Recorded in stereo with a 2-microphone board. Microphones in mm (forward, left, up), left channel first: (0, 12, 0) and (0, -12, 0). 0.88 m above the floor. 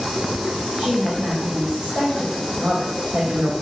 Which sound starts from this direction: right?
A woman speaking, at 0.8 s.